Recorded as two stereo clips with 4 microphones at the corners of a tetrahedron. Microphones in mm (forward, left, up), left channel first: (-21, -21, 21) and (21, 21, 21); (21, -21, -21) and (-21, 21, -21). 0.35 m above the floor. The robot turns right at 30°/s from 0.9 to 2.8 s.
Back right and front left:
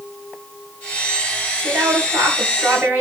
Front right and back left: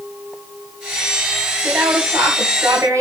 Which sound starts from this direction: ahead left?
A woman speaking, at 1.6 s.